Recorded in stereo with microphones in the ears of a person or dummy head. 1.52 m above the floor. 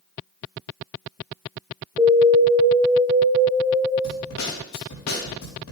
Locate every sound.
2.0 s an alarm: 10° right (ahead or behind), 2.0 m
4.0 s a snare drum: 85° left, 3.5 m